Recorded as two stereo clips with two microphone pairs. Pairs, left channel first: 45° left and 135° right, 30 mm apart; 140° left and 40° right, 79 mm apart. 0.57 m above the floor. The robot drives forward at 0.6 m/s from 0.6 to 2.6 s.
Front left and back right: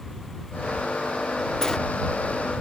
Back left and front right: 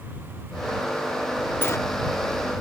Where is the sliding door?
105° left, 0.6 m; by 1.8 s 120° left, 0.6 m.